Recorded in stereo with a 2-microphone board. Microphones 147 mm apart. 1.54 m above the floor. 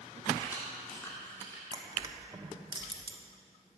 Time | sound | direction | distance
0.4 | keys jangling | 20° left (ahead or behind) | 2.5 m
1.7 | crushing | 30° right (ahead or behind) | 1.1 m